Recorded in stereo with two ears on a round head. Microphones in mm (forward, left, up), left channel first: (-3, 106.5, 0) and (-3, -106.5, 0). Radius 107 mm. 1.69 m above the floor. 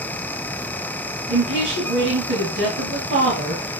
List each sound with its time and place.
1.3 s a woman speaking: 50° right (ahead or behind), 2.5 m